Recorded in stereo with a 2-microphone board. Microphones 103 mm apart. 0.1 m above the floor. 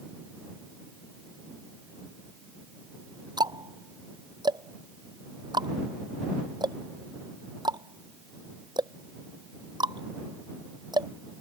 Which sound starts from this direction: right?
Ticking, at 3.4 s.